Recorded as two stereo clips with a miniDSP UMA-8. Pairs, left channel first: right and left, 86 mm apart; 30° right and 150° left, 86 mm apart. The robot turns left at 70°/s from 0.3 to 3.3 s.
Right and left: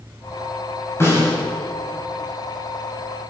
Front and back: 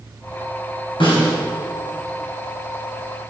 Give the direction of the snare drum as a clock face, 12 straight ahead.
1 o'clock.